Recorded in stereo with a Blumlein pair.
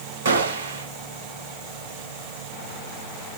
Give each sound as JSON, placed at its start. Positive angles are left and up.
{"t": 0.2, "sound": "a gunshot", "azimuth_deg": -60, "distance_m": 1.1}